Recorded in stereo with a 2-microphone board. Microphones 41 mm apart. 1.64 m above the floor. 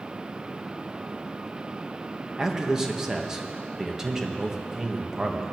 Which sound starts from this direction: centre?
A man speaking, at 2.4 s.